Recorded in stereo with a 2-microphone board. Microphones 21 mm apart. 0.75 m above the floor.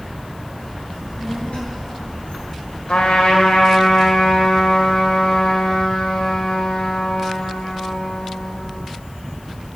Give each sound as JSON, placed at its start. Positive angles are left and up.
{"t": 0.9, "sound": "a child speaking", "side_deg": 60, "distance_m": 8.0}
{"t": 2.9, "sound": "a trumpet", "side_deg": 70, "distance_m": 3.0}